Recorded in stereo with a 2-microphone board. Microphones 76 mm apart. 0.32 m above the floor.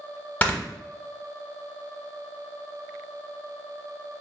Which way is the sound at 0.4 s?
20° left (ahead or behind).